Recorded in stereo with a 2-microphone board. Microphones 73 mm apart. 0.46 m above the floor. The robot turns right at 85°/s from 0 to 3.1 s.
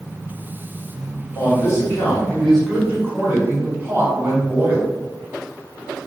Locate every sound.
1.4 s a man speaking: 70° left, 1.7 m; by 4.9 s 140° right, 1.7 m